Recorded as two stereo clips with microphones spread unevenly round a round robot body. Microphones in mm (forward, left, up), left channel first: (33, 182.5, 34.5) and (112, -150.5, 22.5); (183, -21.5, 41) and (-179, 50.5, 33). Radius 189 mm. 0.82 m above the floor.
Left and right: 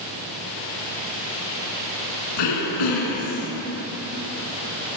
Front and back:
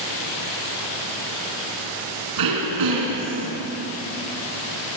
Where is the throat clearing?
135° left, 3 m.